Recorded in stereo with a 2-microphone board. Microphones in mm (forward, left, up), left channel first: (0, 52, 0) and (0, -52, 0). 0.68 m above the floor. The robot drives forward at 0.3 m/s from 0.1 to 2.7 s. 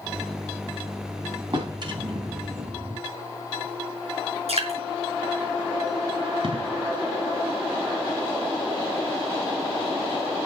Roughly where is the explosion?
Right.